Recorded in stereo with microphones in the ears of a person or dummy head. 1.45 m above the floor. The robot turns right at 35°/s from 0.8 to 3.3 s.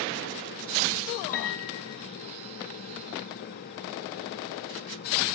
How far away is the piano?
About 1.4 m.